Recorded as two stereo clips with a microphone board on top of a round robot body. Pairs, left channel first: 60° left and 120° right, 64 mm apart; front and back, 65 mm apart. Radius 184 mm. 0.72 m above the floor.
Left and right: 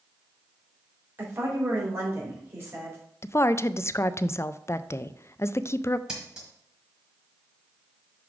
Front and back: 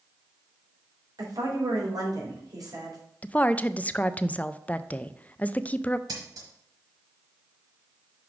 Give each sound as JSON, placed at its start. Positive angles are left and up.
{"t": 1.2, "sound": "a woman speaking", "azimuth_deg": -170, "distance_m": 3.5}
{"t": 3.2, "sound": "a woman speaking", "azimuth_deg": 55, "distance_m": 0.5}
{"t": 6.1, "sound": "scissors", "azimuth_deg": 160, "distance_m": 1.2}